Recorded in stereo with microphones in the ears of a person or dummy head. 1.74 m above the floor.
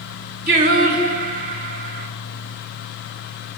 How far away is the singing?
About 1.5 m.